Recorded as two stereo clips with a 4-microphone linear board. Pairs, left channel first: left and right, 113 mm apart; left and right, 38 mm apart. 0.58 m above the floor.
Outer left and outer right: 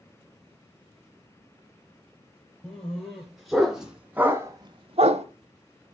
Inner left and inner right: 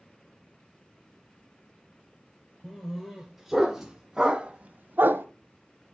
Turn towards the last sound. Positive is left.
turn(degrees=-75)  # may be behind; listen again after turning